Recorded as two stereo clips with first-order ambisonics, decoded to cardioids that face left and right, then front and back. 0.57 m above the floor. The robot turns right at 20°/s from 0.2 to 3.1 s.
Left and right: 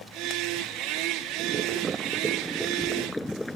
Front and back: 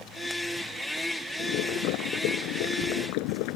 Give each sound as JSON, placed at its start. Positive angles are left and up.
{"t": 1.4, "sound": "boiling", "azimuth_deg": -30}